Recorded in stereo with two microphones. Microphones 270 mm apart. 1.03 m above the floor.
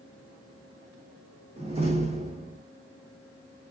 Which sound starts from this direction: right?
A door slam, at 1.6 s.